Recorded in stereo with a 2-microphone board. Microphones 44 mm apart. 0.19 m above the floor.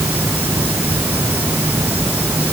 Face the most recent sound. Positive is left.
turn(degrees=-45)  # may be behind; listen again after turning